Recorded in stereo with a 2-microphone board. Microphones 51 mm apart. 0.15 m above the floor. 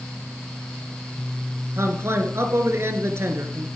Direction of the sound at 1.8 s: 55° right (ahead or behind).